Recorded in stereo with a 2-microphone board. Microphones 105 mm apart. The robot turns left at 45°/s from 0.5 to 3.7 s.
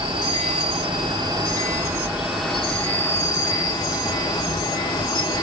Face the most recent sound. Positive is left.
turn(degrees=125)